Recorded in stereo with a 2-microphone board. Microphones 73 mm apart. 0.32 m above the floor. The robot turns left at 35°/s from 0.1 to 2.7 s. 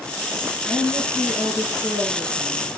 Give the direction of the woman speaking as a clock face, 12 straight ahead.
1 o'clock.